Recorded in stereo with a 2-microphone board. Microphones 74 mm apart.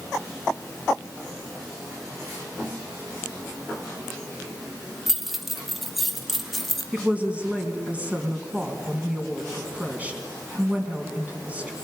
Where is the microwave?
No microwave in this recording.